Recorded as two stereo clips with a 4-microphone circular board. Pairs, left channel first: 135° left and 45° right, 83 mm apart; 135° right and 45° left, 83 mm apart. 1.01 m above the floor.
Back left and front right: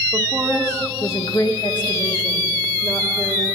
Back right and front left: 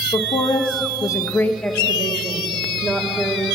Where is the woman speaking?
115° right, 0.7 m; by 3.5 s 125° left, 2 m.